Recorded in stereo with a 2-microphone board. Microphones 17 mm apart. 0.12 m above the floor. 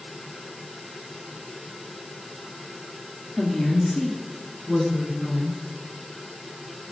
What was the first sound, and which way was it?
A woman speaking, 55° left (ahead or behind).